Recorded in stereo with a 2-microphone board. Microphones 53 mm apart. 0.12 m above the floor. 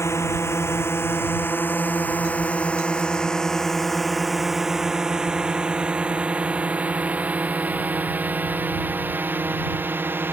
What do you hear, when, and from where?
0.0 s a drone: 60° left (ahead or behind); by 10.3 s 40° right (ahead or behind)